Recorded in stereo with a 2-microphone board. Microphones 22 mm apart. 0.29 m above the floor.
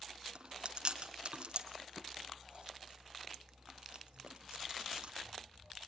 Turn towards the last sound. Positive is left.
turn(degrees=-55)  # may be behind; listen again after turning